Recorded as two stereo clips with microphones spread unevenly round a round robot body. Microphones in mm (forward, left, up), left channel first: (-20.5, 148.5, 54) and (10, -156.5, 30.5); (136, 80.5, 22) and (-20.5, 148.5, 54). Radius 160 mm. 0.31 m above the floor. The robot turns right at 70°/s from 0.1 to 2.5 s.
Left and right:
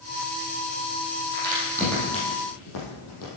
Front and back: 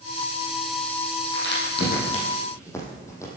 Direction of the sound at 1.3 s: 30° right.